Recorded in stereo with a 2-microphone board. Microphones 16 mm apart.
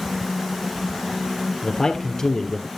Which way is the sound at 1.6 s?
40° left (ahead or behind).